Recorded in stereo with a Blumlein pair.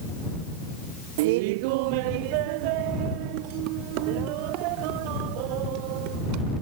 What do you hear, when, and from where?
1.2 s laughter: 50° right; by 6.5 s 45° right